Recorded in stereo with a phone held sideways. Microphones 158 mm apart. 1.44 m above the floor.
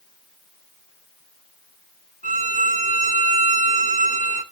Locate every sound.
2.2 s a violin: 60° left (ahead or behind), 1.9 m